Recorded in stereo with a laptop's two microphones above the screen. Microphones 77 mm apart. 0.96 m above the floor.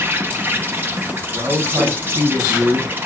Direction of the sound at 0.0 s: 25° right (ahead or behind).